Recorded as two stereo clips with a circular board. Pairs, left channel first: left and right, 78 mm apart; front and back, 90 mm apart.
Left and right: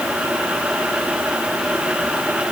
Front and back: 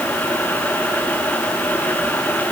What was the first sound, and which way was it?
Only background noise.